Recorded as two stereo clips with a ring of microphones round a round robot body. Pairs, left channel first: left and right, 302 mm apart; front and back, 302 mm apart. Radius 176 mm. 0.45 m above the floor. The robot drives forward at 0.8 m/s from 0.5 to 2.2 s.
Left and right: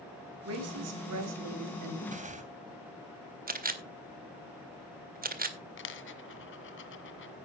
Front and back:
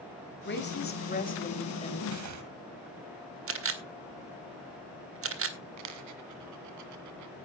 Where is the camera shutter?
145° right, 2 m.